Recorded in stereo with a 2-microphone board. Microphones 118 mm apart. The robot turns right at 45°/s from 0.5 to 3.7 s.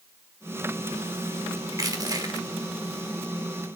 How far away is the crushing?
About 1.3 m.